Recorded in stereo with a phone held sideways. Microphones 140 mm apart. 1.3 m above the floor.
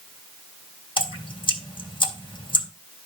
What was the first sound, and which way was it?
Dripping, 35° left (ahead or behind).